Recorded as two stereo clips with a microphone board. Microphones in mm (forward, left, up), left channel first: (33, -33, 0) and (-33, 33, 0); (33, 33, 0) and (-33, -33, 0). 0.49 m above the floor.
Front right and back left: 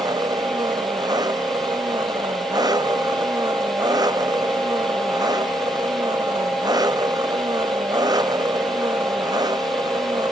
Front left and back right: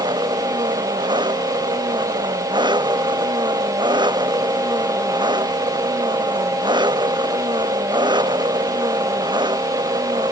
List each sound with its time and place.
0.0 s an engine running: 175° right